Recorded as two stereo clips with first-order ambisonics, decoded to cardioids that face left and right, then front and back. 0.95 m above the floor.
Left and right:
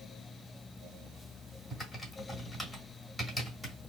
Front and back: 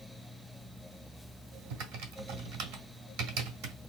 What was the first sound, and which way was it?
Typing on a keyboard, straight behind.